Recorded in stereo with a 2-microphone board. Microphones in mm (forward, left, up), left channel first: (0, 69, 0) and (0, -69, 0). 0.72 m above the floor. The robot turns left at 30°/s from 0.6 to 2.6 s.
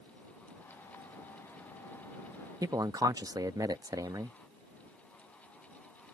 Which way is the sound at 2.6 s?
30° right (ahead or behind).